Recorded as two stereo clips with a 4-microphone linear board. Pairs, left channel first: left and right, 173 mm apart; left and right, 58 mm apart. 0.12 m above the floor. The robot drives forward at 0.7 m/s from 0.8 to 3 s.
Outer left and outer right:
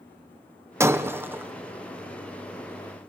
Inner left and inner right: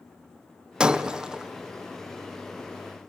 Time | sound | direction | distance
0.8 | breaking glass | 15° right (ahead or behind) | 1.5 m